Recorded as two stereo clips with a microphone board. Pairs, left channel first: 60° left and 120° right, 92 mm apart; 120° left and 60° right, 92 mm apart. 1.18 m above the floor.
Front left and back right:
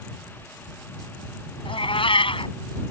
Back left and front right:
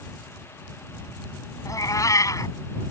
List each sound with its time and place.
1.6 s a cat meowing: 70° left